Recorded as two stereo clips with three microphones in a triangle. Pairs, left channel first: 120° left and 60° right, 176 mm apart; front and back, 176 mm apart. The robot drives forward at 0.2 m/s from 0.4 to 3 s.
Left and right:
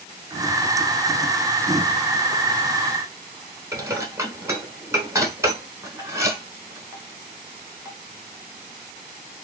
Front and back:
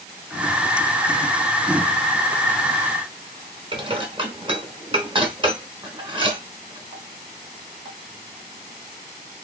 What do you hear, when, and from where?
3.7 s dishes clattering: 130° right, 1.1 m